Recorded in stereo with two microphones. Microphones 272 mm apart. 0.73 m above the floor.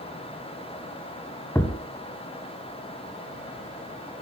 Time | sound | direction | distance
1.6 | a thud | 10° left (ahead or behind) | 1.7 m